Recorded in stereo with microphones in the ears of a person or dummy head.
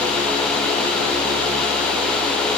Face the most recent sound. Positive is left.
No sound to turn to.